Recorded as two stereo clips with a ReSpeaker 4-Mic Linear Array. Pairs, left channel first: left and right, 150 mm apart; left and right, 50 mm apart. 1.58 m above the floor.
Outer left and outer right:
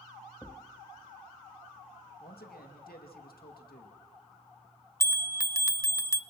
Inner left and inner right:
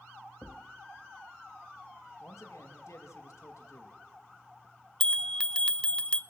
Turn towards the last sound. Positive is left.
turn(degrees=20)  # may be behind; listen again after turning